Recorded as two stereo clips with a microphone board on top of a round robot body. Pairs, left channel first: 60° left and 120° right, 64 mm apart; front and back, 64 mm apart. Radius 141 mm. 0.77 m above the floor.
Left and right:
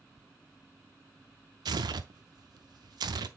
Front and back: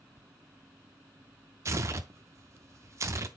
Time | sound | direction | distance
1.6 | tearing paper | 135° right | 0.5 m